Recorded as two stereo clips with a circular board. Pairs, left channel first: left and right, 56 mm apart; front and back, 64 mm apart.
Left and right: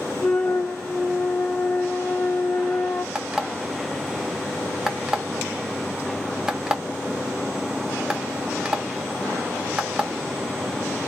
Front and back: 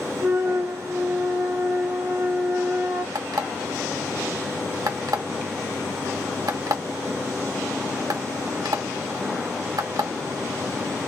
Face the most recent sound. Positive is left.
turn(degrees=-170)